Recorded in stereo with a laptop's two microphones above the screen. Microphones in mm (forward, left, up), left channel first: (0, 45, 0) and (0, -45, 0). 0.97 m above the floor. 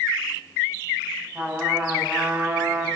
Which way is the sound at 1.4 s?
20° right (ahead or behind).